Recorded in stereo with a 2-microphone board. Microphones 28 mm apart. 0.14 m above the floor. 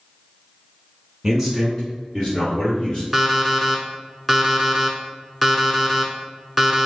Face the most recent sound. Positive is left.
turn(degrees=0)  # may be behind; listen again after turning